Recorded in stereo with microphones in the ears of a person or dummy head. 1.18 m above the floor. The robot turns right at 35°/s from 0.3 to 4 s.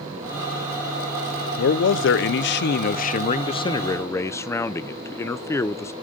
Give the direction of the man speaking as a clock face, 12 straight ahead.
9 o'clock.